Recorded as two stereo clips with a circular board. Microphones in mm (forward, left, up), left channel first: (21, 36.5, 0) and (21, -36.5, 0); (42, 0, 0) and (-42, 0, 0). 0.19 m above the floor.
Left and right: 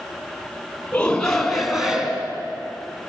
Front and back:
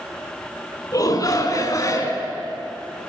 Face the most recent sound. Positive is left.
turn(degrees=-25)